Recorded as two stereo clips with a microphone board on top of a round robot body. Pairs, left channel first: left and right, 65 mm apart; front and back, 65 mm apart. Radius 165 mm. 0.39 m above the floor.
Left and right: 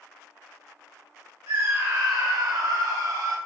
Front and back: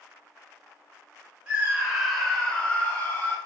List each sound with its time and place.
1.5 s a scream: 115° right, 2.5 m; by 3.4 s 60° right, 3.5 m